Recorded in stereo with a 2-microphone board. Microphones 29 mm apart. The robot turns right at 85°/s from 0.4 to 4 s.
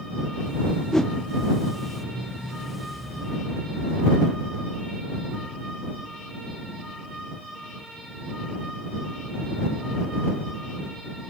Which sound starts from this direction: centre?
A whoosh, at 0.9 s.